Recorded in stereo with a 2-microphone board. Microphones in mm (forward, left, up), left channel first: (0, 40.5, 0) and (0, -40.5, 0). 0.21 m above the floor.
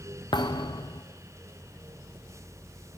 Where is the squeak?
No squeak in this recording.